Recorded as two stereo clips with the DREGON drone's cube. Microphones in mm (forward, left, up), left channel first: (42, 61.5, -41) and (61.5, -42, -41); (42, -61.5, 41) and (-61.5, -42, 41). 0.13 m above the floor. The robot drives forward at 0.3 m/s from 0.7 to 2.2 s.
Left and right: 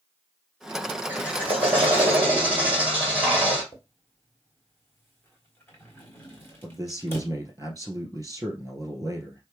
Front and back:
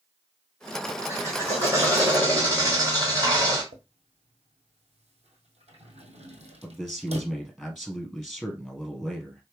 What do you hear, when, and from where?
1.1 s a drill: 140° right, 2 m; by 3.6 s 150° right, 2.5 m
3.7 s a drawer: 170° left, 1.4 m
6.6 s a man speaking: 105° right, 1.6 m